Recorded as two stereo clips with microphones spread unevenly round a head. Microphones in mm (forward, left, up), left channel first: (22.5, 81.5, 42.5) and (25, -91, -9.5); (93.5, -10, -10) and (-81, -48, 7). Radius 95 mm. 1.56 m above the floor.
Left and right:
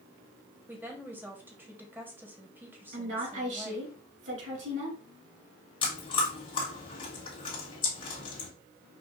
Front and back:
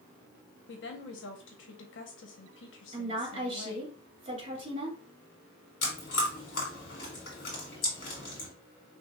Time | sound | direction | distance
0.7 | a woman speaking | 5° right | 1.3 m
2.9 | a woman speaking | 105° right | 3 m
5.8 | chewing | 50° left | 2.5 m